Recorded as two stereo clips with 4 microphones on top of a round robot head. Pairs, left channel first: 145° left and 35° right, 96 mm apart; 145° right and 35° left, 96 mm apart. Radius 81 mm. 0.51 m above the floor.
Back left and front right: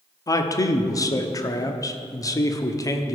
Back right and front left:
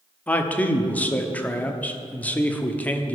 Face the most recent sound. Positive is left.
turn(degrees=155)